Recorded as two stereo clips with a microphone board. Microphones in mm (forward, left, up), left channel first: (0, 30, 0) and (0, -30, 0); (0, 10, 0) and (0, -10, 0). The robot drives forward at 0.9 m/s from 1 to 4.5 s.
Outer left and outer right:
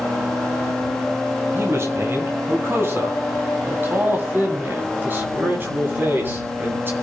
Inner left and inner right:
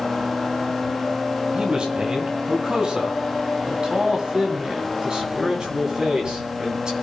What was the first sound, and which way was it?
A man speaking, 50° right (ahead or behind).